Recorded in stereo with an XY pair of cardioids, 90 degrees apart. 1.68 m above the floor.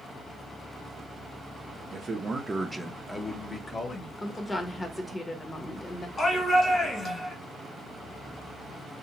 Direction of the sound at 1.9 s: 55° right.